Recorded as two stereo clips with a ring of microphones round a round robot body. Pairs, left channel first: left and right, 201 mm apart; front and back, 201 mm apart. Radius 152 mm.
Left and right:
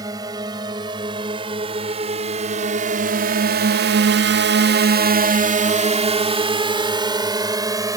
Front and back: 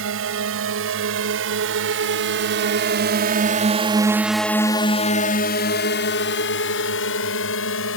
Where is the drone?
165° right; by 8.0 s 20° right.